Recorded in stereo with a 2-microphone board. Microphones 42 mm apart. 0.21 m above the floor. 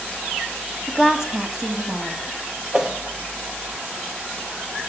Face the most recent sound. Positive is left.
turn(degrees=-15)  # may be behind; listen again after turning